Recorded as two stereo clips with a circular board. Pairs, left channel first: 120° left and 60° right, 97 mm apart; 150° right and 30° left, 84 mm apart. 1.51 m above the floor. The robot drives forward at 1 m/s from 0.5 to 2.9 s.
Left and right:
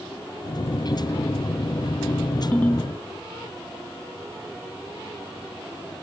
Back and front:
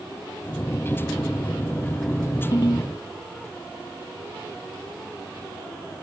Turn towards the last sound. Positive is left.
turn(degrees=-170)